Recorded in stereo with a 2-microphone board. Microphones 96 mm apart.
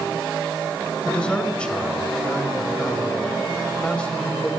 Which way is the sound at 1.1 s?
10° left (ahead or behind).